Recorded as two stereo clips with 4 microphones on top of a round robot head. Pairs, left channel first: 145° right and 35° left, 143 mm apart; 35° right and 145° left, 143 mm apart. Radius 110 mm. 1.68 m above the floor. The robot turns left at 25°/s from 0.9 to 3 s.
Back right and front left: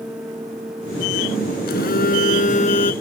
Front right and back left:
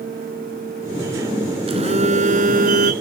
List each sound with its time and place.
1.7 s a phone buzzing: 160° right; by 2.9 s 165° left